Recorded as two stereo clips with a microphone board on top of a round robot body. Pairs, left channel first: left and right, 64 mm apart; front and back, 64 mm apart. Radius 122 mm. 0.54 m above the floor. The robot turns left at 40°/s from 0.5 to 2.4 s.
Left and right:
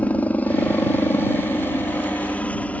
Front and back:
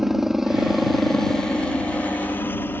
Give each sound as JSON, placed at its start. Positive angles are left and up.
{"t": 0.0, "sound": "a helicopter", "azimuth_deg": 100}